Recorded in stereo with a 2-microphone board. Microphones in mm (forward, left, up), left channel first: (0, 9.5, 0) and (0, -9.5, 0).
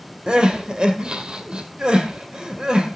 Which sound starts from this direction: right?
Crying, at 0.3 s.